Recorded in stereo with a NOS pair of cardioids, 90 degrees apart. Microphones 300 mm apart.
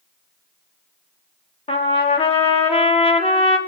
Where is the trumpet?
20° left, 1.6 m.